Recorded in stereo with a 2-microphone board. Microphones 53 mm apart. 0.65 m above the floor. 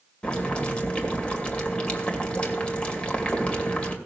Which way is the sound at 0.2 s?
20° left (ahead or behind).